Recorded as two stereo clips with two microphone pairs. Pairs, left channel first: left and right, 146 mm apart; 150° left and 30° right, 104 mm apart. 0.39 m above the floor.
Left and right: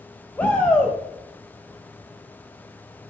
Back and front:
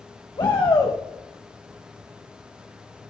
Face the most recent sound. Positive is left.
turn(degrees=165)